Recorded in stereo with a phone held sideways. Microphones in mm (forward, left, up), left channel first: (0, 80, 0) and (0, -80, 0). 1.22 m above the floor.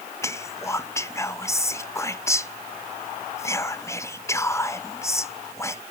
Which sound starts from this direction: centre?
Whispering, at 0.2 s.